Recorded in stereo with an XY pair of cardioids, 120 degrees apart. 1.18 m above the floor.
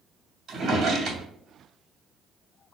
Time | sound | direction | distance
0.5 | a drawer | 45° right | 2.5 m